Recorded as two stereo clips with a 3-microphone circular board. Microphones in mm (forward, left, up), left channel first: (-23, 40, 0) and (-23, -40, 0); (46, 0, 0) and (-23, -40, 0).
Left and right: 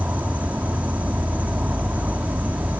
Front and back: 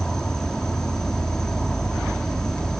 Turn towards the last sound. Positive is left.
turn(degrees=-45)